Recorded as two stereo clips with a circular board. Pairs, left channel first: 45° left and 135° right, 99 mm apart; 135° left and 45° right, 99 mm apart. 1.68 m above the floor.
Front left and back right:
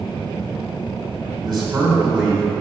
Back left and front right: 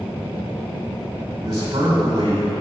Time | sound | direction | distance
1.4 | a man speaking | 95° right | 2 m